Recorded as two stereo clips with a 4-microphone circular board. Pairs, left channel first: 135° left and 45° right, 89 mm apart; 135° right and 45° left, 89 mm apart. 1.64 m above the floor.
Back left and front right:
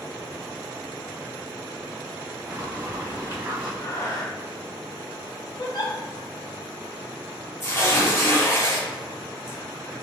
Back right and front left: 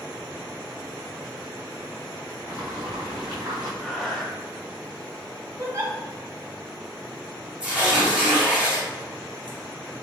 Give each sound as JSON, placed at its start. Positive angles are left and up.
{"t": 2.5, "sound": "boiling", "azimuth_deg": 30, "distance_m": 1.9}
{"t": 3.8, "sound": "breathing", "azimuth_deg": 145, "distance_m": 0.8}
{"t": 5.6, "sound": "a giggle", "azimuth_deg": 100, "distance_m": 0.8}
{"t": 7.6, "sound": "tearing paper", "azimuth_deg": 115, "distance_m": 1.5}